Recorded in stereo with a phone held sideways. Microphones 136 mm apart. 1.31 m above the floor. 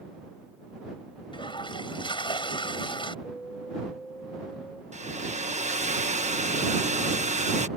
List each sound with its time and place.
1.3 s a toilet flushing: 40° left (ahead or behind)
3.2 s an alarm: 10° left (ahead or behind)
4.9 s a hair dryer: 60° right (ahead or behind)